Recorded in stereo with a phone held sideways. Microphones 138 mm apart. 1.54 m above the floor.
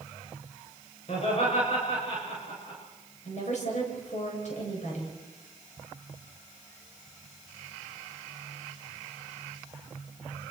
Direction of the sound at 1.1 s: 50° left (ahead or behind).